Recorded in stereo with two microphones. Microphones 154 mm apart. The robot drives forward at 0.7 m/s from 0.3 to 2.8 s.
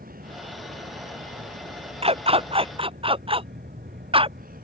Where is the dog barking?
40° right (ahead or behind); by 4.4 s 35° right (ahead or behind).